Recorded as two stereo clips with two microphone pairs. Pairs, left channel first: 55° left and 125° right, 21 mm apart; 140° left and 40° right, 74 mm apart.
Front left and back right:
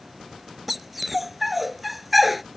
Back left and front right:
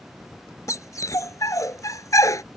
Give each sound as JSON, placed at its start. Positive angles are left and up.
{"t": 0.7, "sound": "a dog barking", "azimuth_deg": 155}